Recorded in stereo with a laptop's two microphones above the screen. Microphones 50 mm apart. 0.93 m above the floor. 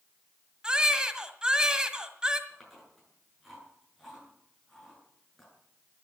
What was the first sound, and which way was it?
A baby crying, 15° right (ahead or behind).